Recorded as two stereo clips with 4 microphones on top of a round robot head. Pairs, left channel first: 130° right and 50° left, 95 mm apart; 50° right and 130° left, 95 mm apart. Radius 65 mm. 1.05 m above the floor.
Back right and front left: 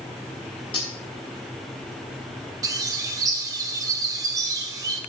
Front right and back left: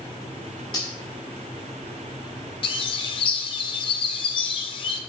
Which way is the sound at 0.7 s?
95° right.